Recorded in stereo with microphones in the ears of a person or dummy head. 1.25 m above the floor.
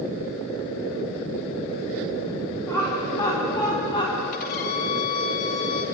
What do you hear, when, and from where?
2.7 s laughter: 15° left (ahead or behind), 4.5 m; by 4.2 s 35° left (ahead or behind), 4 m
4.3 s a violin: 45° left (ahead or behind), 1.8 m